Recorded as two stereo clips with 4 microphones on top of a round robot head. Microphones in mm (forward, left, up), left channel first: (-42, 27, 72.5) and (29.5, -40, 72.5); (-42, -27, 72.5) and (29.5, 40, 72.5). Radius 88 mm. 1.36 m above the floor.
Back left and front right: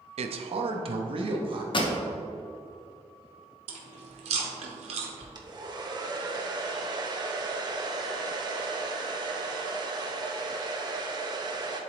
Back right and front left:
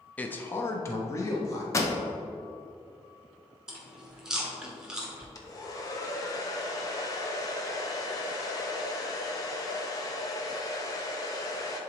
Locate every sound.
0.2 s a man speaking: 60° right, 0.6 m; by 1.6 s 80° right, 1.3 m
1.7 s a pop: 165° left, 1.0 m
3.7 s chewing: 40° right, 1.0 m
5.3 s a hair dryer: 85° right, 1.0 m